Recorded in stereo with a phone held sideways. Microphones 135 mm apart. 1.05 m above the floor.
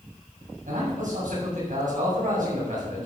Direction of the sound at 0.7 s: 80° right.